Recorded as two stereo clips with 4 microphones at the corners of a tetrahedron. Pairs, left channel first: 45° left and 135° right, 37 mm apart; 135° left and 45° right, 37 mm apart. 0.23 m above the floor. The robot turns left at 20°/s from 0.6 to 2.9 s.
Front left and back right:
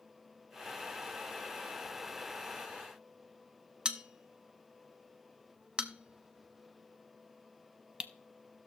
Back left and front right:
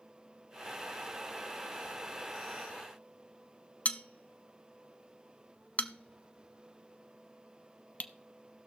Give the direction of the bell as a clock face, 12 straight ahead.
6 o'clock.